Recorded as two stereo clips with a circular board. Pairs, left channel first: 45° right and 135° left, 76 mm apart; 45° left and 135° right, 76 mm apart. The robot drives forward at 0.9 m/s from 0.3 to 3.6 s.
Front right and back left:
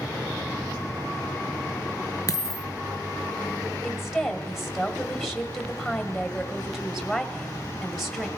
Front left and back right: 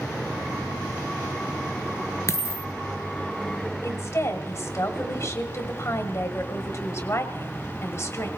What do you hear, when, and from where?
2.3 s a dropped coin: 5° right, 1.0 m
3.8 s a woman speaking: 50° left, 1.7 m